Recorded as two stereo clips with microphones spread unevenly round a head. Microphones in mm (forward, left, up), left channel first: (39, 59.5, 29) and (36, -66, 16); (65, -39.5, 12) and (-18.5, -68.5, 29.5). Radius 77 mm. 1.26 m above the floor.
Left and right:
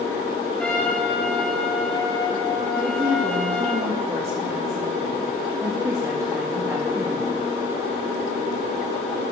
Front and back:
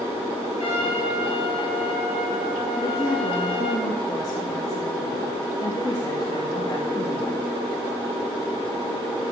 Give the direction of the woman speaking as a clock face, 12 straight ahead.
1 o'clock.